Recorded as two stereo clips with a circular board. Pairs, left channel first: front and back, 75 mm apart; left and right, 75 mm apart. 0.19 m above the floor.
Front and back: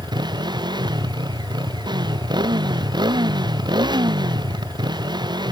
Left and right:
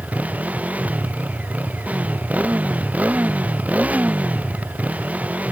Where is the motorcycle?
160° right.